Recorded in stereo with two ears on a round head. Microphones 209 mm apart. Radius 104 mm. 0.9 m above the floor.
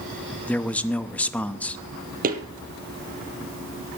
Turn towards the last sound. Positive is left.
turn(degrees=-40)  # may be behind; listen again after turning